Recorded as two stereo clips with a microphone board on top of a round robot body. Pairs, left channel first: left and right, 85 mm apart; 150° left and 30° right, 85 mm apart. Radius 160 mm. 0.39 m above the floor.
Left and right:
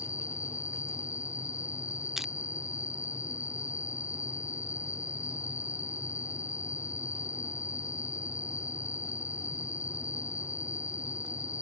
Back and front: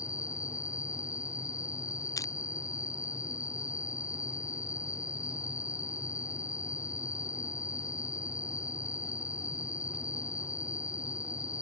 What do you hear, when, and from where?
0.0 s an insect: 120° left
2.2 s crushing: 175° right